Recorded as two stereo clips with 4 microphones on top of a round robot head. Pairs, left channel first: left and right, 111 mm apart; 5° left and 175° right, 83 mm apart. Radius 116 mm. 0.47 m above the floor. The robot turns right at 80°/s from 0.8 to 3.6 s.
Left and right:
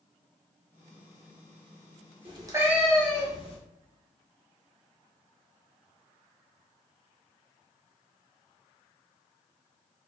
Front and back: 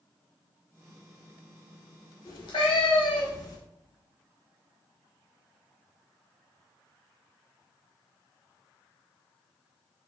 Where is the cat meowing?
50° right, 1.0 m; by 3.6 s 55° left, 1.0 m.